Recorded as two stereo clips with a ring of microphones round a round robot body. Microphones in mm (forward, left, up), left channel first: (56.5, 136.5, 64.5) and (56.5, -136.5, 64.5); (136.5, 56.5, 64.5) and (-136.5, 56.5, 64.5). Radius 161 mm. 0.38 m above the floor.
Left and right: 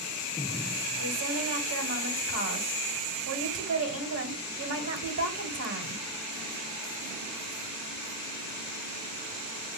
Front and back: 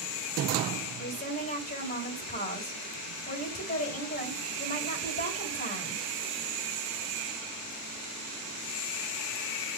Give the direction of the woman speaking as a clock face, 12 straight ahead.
2 o'clock.